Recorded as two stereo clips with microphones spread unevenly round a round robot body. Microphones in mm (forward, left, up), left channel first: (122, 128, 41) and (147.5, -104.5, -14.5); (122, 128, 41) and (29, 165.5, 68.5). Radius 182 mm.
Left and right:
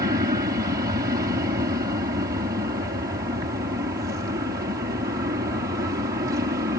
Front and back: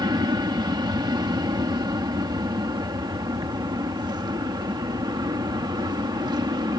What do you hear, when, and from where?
0.0 s an aircraft: 145° right